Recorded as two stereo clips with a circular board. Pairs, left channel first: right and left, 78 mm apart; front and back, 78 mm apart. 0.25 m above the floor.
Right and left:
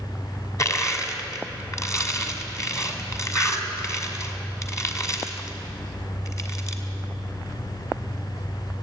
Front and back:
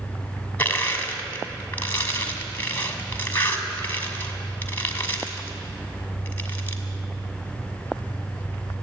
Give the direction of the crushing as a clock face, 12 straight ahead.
2 o'clock.